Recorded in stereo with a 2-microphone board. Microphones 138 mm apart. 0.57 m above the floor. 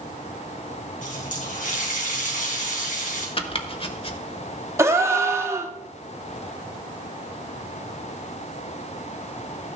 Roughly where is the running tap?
Left.